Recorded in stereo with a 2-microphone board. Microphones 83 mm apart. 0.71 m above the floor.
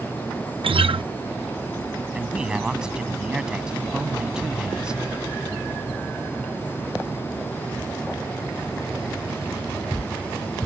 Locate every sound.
0.6 s a guitar: 80° right
2.1 s a man speaking: 10° right (ahead or behind)